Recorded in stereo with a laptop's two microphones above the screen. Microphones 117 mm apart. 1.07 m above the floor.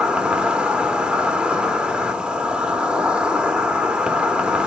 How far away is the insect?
About 0.7 m.